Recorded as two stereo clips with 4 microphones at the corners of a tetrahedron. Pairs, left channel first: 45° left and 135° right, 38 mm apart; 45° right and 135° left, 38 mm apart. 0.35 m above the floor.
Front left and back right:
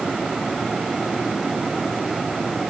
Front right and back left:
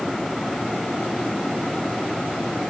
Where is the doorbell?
No doorbell in this recording.